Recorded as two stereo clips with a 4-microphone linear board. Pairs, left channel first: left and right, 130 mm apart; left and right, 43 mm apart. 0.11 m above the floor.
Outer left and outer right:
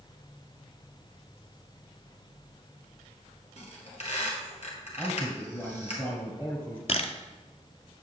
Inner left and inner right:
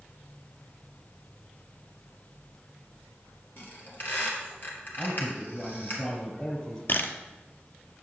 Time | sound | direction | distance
3.6 | a squeak | 55° left (ahead or behind) | 1.9 m
5.0 | a man speaking | 15° left (ahead or behind) | 1.3 m
6.9 | a camera shutter | 55° left (ahead or behind) | 0.5 m